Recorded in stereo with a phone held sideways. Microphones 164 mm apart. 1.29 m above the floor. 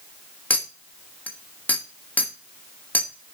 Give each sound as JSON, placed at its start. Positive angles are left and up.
{"t": 0.5, "sound": "a clink", "side_deg": 10, "distance_m": 1.1}